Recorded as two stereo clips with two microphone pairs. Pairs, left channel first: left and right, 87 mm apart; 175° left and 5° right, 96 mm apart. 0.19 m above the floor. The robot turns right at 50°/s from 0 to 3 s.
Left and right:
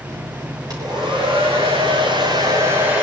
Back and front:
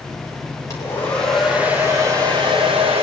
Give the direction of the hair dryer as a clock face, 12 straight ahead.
4 o'clock.